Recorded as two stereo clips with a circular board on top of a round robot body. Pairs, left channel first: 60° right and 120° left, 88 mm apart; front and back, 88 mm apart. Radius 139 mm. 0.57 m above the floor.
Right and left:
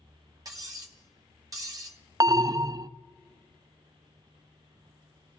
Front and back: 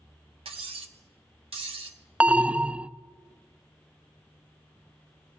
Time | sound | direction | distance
0.5 | cutlery clinking | 170° left | 1.4 m
2.2 | an alarm | 110° left | 0.5 m